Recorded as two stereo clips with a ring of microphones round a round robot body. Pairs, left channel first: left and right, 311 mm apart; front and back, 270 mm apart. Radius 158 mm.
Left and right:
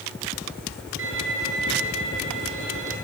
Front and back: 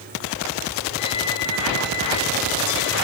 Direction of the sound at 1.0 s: 40° right.